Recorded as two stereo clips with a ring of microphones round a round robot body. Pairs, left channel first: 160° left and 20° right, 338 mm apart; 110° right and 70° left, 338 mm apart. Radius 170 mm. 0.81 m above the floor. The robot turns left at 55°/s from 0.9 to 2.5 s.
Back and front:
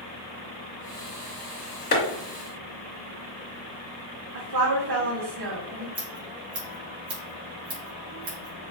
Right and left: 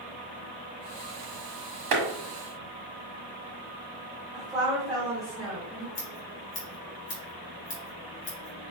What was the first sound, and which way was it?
A clap, 95° left.